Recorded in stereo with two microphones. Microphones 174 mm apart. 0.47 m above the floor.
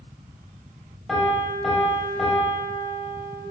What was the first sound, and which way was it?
A piano, centre (ahead or behind).